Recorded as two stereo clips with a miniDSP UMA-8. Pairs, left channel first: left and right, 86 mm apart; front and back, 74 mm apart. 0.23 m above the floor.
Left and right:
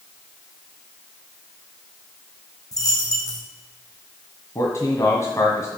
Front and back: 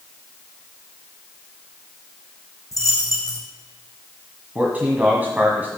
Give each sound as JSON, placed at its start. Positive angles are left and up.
{"t": 2.7, "sound": "a dropped coin", "azimuth_deg": 40, "distance_m": 4.0}
{"t": 4.5, "sound": "a man speaking", "azimuth_deg": 125, "distance_m": 1.6}